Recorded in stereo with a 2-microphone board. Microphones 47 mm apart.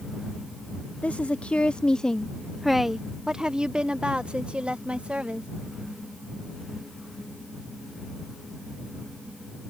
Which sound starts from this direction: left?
A woman speaking, at 1.0 s.